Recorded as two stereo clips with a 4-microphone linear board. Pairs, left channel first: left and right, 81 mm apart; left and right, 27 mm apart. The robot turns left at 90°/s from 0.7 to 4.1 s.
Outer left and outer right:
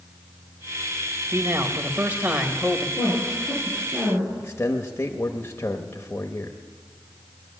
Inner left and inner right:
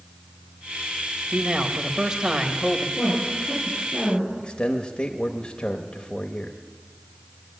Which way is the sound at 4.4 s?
30° left (ahead or behind).